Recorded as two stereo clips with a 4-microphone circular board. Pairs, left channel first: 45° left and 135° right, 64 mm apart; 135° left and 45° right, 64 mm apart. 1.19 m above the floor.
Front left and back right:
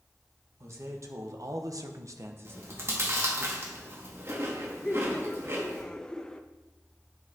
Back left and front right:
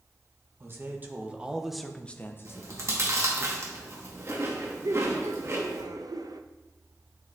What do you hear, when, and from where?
0.6 s a man speaking: 95° right, 1.5 m; by 3.5 s 145° left, 1.5 m
2.5 s chewing: 85° right, 1.6 m
4.8 s laughter: 35° right, 0.7 m